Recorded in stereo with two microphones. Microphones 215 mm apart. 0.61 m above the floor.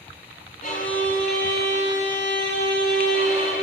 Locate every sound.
0.6 s a violin: 40° left (ahead or behind), 4.5 m